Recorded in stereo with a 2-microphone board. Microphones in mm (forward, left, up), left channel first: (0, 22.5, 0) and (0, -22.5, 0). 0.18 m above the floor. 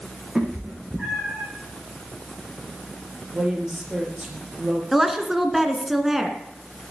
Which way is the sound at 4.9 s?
5° right (ahead or behind).